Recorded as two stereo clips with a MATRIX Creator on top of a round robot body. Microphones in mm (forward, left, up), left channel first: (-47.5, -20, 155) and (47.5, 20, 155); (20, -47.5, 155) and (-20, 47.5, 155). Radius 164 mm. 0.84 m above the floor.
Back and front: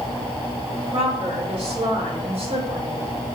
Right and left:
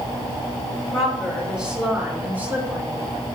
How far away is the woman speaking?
About 4 m.